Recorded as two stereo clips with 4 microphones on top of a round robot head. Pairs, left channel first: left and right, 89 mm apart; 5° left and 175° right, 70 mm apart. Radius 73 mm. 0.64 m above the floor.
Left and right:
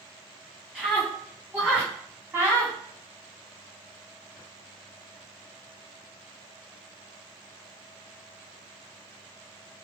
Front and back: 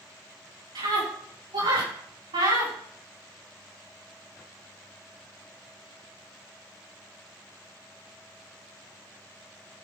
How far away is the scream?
About 6 m.